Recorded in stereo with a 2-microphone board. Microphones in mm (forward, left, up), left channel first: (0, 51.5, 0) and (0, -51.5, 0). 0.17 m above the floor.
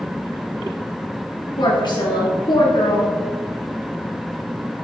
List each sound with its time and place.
1.6 s a woman speaking: 50° left (ahead or behind), 2 m